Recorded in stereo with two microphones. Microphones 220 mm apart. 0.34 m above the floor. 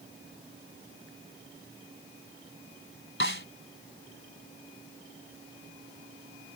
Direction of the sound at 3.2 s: 65° left (ahead or behind).